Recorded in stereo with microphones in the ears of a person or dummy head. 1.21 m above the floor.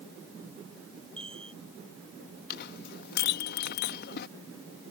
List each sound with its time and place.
1.2 s a chime: 35° right (ahead or behind)
2.5 s a clink: 55° left (ahead or behind)